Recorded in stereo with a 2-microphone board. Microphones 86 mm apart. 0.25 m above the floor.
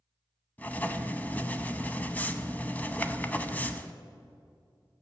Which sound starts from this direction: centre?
Writing, at 0.6 s.